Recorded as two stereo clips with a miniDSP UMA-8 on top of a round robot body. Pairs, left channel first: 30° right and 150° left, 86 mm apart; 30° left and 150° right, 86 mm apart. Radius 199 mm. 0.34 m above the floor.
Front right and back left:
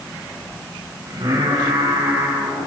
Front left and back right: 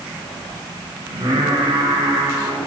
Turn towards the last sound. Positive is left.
turn(degrees=175)